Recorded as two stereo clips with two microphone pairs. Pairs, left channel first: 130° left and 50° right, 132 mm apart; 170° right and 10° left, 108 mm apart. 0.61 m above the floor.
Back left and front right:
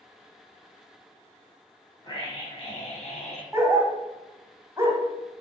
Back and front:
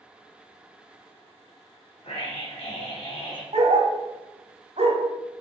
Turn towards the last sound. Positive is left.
turn(degrees=20)